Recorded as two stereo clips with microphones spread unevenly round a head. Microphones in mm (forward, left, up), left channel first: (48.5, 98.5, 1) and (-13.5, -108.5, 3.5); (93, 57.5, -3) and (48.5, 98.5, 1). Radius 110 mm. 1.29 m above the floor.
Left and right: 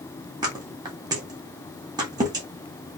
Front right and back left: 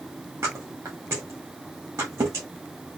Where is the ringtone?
No ringtone in this recording.